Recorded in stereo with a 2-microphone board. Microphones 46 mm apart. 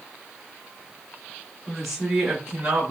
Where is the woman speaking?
Centre (ahead or behind), 2.0 m; by 2.9 s 20° right (ahead or behind), 1.8 m.